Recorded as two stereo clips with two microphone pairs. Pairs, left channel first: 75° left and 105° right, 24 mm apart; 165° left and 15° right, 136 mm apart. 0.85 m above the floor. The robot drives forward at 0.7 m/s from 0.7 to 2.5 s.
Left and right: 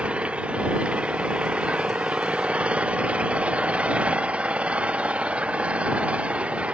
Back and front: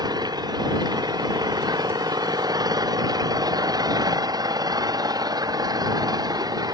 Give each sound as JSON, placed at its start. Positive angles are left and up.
{"t": 0.0, "sound": "an engine running", "azimuth_deg": -75}